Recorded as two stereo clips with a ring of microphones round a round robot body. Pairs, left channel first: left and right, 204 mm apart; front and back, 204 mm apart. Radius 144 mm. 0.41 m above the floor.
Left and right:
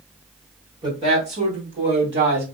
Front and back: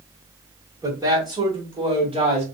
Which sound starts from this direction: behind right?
A woman speaking, at 0.8 s.